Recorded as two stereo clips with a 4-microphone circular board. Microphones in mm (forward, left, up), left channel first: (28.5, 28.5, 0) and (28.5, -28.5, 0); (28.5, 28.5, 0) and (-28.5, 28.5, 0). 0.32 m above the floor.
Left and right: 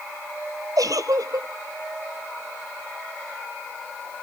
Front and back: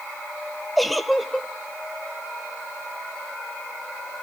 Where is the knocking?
I don't hear knocking.